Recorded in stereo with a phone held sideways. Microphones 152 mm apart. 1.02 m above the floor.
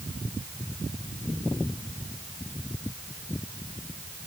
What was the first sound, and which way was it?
Only background noise.